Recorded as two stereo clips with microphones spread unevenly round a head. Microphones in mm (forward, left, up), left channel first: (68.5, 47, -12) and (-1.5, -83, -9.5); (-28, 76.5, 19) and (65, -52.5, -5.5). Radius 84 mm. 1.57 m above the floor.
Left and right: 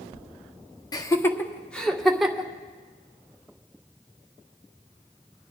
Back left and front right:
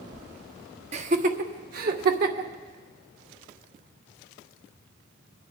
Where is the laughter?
5° right, 0.9 m; by 2.5 s 30° right, 1.8 m.